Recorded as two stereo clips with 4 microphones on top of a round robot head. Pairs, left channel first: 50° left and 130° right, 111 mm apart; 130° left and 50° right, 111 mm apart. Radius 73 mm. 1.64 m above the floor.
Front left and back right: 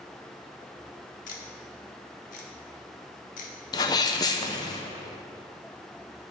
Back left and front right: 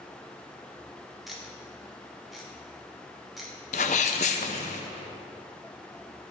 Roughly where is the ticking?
Ahead left.